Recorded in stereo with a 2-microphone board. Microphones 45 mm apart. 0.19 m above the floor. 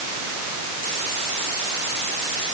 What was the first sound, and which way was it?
Only background noise.